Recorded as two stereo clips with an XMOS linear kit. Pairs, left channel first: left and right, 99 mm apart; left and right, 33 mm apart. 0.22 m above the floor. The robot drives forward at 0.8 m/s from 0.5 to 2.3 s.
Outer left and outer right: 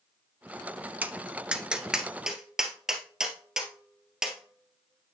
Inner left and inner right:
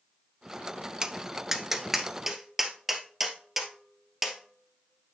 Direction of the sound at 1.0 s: 20° right (ahead or behind).